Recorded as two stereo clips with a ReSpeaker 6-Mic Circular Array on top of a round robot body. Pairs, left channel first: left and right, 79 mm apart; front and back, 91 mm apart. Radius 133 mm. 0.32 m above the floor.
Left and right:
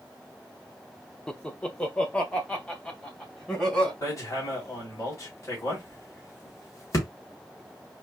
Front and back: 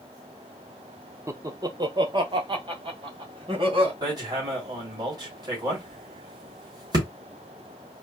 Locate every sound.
1.3 s laughter: 165° left, 1.0 m
4.0 s hammering: 140° left, 3 m